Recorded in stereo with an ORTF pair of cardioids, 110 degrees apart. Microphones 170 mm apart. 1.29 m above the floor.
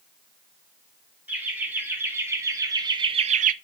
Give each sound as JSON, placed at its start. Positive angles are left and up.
{"t": 1.3, "sound": "laughter", "azimuth_deg": -10, "distance_m": 4.0}